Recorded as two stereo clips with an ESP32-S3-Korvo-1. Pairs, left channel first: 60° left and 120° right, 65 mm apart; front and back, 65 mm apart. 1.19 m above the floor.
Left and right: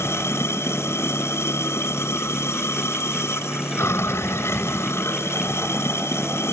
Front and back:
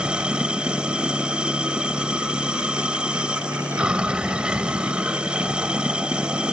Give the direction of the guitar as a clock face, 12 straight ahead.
No guitar in this recording.